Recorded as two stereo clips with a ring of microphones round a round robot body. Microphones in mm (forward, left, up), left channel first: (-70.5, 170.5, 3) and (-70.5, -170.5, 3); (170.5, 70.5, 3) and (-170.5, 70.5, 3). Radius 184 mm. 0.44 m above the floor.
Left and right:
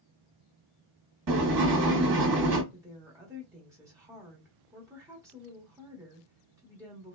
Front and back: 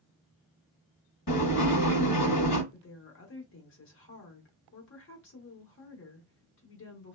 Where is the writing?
50° right, 1.0 m.